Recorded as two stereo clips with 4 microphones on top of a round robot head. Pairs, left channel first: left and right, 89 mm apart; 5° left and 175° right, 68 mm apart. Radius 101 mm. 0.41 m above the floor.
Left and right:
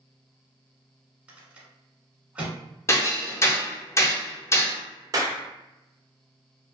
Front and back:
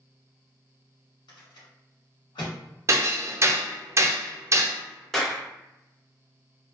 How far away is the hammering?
About 0.6 m.